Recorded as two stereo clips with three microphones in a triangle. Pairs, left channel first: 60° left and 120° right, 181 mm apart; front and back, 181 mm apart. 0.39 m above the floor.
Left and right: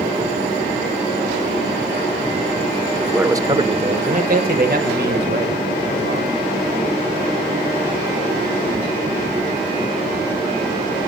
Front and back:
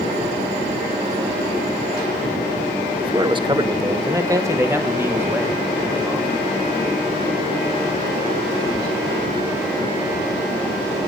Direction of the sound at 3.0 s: 155° left.